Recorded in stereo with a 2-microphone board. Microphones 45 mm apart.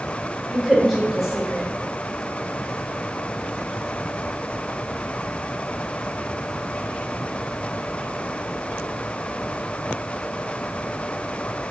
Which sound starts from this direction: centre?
A woman speaking, at 0.5 s.